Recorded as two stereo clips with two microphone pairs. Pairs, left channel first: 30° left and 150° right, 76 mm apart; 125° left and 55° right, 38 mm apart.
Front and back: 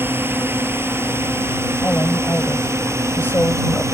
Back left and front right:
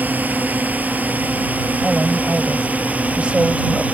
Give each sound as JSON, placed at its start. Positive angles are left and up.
{"t": 0.0, "sound": "a drone", "azimuth_deg": -90}
{"t": 1.8, "sound": "a woman speaking", "azimuth_deg": -15}